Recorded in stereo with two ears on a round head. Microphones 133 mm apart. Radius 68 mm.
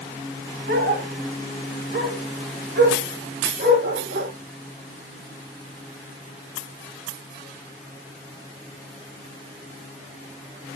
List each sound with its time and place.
0.7 s a dog barking: 75° right (ahead or behind), 5 m